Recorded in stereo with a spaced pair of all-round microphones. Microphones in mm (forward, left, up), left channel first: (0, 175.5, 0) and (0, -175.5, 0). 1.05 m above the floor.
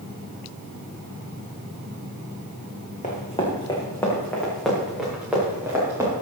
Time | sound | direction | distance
3.0 | running footsteps | 20° left (ahead or behind) | 3 m